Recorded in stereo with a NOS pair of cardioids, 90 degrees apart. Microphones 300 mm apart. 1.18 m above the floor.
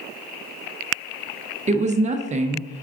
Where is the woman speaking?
25° right, 0.6 m.